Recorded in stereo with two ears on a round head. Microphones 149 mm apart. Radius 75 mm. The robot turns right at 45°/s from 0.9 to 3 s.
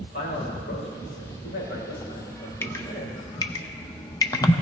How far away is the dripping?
About 0.7 m.